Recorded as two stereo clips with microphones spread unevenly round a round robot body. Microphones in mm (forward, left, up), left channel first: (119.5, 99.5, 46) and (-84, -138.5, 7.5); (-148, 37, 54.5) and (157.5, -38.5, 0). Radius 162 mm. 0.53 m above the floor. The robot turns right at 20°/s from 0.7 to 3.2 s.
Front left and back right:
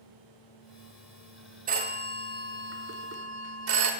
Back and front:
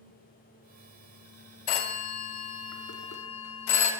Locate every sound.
1.7 s a phone ringing: 175° left, 0.7 m; by 3.9 s 155° right, 0.7 m